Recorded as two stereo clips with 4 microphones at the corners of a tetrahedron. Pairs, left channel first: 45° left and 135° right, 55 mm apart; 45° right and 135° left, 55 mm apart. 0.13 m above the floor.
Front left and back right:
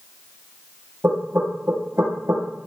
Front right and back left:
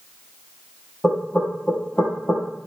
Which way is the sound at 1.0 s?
105° right.